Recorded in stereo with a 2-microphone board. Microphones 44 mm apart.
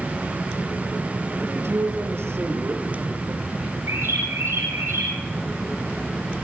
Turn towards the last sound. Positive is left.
turn(degrees=-75)  # may be behind; listen again after turning